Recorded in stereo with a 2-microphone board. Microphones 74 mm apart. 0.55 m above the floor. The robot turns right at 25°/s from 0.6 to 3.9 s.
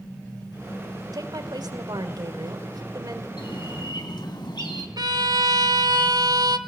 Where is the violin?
60° right (ahead or behind), 1.4 m.